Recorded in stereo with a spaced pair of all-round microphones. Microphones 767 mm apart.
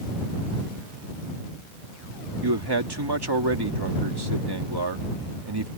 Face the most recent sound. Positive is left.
turn(degrees=-30)  # may be behind; listen again after turning